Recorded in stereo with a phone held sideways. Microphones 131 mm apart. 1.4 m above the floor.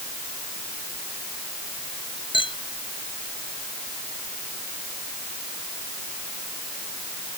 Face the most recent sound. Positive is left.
turn(degrees=40)  # may be behind; listen again after turning